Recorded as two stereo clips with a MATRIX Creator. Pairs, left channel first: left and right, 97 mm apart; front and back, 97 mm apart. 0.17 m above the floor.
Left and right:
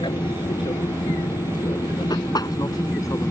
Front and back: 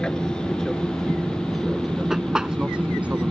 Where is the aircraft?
80° left; by 3.3 s 120° left.